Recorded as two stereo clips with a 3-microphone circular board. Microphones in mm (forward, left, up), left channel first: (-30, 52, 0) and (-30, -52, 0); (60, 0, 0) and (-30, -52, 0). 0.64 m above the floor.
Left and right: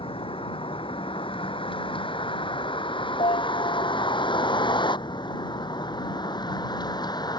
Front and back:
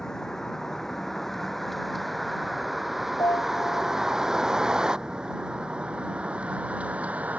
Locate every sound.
0.0 s a vehicle: 115° left; by 7.4 s 135° left
3.2 s a piano: 85° left